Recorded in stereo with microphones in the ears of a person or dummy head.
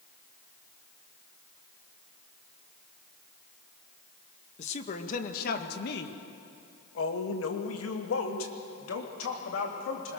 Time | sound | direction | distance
4.6 | a woman speaking | 40° left (ahead or behind) | 2.0 m